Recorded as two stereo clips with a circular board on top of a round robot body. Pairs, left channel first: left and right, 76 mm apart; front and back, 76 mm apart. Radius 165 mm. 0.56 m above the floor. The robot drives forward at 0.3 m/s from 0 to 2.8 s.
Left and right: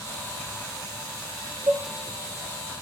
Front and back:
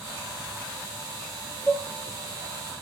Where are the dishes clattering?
115° right, 1.0 m.